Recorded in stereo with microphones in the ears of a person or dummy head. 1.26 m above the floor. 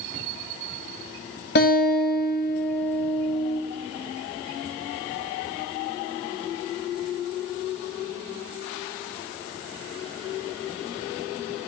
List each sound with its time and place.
1.6 s a guitar: 55° left (ahead or behind), 1.8 m